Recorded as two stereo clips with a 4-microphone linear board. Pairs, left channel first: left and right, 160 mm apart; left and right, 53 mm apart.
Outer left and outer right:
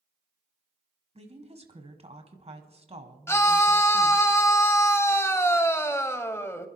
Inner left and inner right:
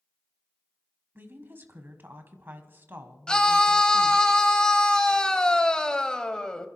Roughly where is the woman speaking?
Right.